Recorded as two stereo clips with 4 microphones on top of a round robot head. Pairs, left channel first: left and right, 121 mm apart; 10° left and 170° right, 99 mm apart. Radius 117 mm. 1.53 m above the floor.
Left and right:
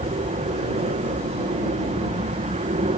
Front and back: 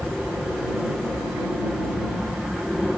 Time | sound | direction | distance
0.0 | an aircraft | 80° right | ?